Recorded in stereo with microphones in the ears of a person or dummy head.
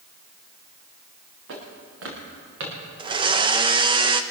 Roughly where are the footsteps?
Right.